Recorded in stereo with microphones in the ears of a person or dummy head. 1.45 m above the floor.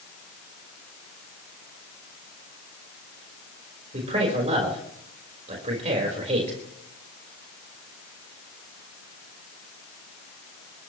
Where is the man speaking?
40° right (ahead or behind), 4.5 m.